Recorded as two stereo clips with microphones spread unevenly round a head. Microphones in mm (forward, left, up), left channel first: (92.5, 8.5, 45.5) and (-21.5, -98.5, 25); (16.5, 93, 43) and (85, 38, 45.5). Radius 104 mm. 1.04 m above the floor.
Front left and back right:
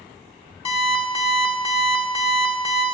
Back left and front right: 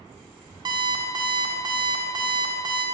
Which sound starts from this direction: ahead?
An alarm clock, at 0.7 s.